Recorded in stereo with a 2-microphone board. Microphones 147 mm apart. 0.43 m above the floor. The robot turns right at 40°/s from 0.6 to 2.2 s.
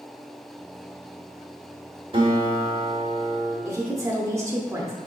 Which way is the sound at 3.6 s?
20° right (ahead or behind).